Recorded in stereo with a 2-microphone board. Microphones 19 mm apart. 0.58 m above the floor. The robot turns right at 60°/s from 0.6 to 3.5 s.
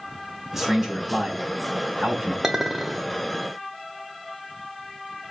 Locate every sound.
0.5 s a man speaking: 165° right, 4 m; by 2.3 s 60° right, 4 m
2.4 s a clink: 35° right, 1.3 m; by 3.1 s 5° left, 1.3 m